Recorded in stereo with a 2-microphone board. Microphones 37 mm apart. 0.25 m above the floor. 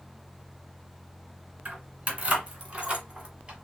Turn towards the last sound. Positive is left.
turn(degrees=-20)  # may be behind; listen again after turning